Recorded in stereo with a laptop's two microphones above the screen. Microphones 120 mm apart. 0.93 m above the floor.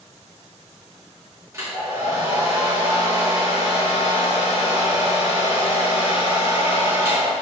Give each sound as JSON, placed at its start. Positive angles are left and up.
{"t": 1.5, "sound": "a hair dryer", "side_deg": -25, "distance_m": 2.5}